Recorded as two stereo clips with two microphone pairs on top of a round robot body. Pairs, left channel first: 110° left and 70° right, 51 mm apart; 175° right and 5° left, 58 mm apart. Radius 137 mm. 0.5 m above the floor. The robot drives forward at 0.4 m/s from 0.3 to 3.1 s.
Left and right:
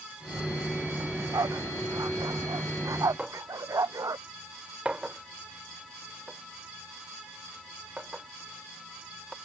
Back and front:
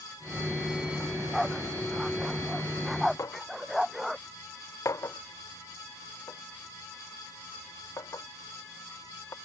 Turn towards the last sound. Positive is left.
turn(degrees=-140)